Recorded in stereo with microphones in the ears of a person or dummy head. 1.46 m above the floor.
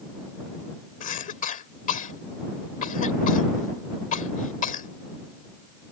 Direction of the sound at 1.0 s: 45° left (ahead or behind).